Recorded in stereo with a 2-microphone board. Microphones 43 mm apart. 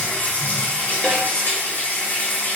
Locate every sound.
0.0 s running water: 55° left (ahead or behind), 1.9 m
1.0 s a snare drum: 20° left (ahead or behind), 0.8 m